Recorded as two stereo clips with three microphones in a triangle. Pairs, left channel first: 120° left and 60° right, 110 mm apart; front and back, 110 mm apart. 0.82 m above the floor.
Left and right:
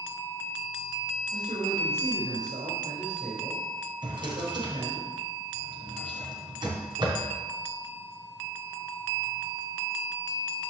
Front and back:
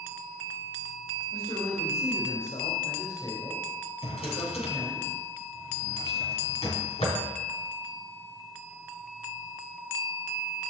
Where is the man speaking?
45° right, 4 m.